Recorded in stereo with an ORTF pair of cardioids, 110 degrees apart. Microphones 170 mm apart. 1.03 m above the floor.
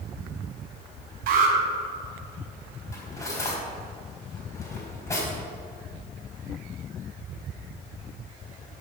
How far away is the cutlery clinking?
About 4 m.